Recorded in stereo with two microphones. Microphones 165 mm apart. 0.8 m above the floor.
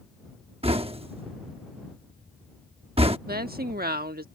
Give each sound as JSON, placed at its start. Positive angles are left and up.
{"t": 0.6, "sound": "knocking", "side_deg": -35}
{"t": 3.3, "sound": "a woman speaking", "side_deg": -70}